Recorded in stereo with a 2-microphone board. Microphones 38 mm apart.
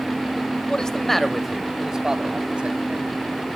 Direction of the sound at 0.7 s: 20° left (ahead or behind).